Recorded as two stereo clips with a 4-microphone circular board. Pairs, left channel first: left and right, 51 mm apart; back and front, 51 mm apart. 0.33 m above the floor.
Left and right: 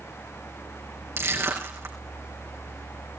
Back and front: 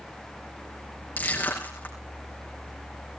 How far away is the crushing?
About 4.5 m.